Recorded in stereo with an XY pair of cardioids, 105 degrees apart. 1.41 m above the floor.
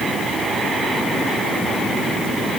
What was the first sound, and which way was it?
Only background noise.